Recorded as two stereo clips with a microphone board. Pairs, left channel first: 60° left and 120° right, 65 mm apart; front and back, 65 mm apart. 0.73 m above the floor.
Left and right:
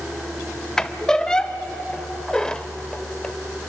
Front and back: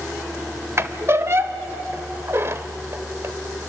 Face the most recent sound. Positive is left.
turn(degrees=135)